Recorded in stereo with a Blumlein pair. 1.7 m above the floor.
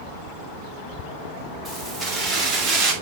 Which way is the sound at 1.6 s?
10° right.